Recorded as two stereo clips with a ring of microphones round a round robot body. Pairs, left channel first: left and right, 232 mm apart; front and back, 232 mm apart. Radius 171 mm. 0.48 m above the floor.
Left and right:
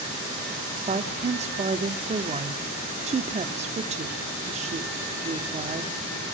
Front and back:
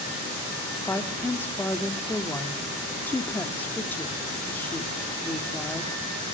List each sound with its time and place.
0.9 s a woman speaking: 75° right, 0.9 m